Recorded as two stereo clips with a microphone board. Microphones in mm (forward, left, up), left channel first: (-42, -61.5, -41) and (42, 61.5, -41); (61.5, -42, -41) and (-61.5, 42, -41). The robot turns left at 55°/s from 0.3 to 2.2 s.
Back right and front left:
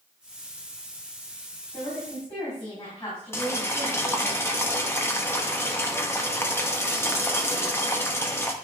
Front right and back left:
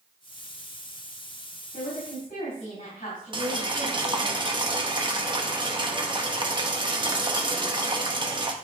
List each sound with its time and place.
1.7 s a woman speaking: 45° right, 4.5 m; by 4.3 s 70° right, 4.5 m
3.3 s boiling: 175° left, 1.0 m